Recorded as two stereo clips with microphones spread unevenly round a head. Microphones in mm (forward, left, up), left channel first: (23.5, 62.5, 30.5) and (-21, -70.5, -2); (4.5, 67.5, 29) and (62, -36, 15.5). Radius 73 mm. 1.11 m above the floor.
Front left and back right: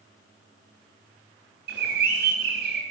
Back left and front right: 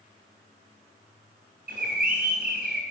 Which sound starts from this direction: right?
A bird, at 1.7 s.